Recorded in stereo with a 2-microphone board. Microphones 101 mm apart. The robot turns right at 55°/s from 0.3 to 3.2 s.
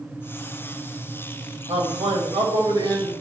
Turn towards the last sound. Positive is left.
turn(degrees=-25)